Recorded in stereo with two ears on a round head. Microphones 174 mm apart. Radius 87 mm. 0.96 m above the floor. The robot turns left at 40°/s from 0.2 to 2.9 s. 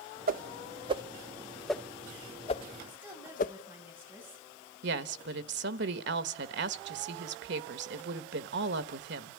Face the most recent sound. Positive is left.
turn(degrees=-65)  # may be behind; listen again after turning